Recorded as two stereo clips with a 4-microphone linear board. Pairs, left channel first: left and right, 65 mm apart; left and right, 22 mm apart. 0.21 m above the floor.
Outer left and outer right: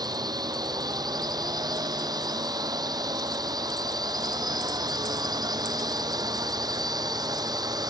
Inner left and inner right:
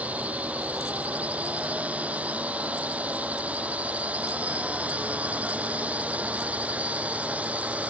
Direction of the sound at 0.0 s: 75° right (ahead or behind).